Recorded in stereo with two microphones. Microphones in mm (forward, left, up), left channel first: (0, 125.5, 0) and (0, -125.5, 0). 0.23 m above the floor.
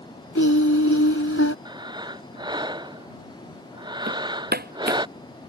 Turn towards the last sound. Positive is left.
turn(degrees=-40)  # may be behind; listen again after turning